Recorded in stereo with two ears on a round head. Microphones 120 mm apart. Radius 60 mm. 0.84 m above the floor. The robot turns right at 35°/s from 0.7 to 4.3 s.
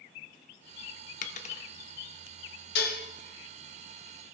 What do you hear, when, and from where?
1.2 s a dropped coin: 60° left (ahead or behind), 0.7 m; by 1.7 s 50° left (ahead or behind), 0.7 m
2.8 s dishes clattering: 85° left, 1.1 m; by 3.0 s 80° left, 1.1 m